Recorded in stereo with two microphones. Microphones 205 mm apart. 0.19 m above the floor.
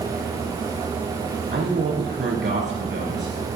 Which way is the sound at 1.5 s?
65° right (ahead or behind).